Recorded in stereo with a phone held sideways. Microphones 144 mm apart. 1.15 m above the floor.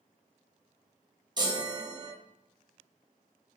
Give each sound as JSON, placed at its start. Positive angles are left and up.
{"t": 1.4, "sound": "a chime", "side_deg": -30, "distance_m": 0.7}